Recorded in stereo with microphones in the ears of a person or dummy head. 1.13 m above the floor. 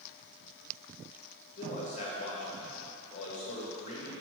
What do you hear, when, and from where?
1.6 s a man speaking: 35° left (ahead or behind), 1.7 m